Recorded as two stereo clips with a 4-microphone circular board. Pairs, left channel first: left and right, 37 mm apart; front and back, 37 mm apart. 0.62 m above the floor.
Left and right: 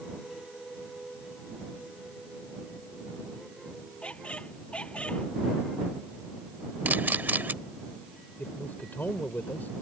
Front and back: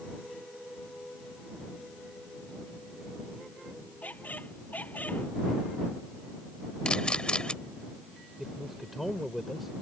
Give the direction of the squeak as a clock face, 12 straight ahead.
11 o'clock.